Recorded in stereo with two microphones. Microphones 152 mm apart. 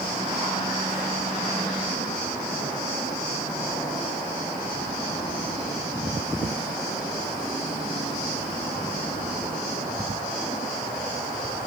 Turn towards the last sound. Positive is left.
No sound to turn to.